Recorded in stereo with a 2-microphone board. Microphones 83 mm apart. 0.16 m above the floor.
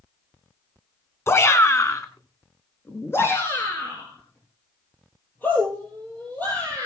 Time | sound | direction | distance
1.3 | a shout | 30° left (ahead or behind) | 1.7 m